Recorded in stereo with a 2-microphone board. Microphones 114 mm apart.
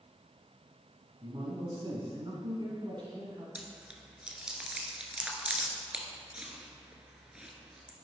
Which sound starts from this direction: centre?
Chewing, at 3.5 s.